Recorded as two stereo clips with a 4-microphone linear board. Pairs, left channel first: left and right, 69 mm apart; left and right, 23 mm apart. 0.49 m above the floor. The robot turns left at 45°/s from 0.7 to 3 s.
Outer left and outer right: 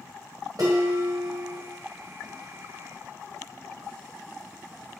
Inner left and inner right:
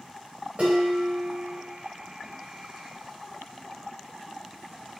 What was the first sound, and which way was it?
Dishes clattering, 80° right.